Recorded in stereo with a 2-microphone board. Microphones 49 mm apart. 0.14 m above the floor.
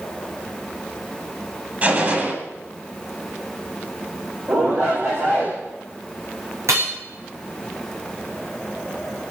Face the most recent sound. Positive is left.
turn(degrees=-75)  # may be behind; listen again after turning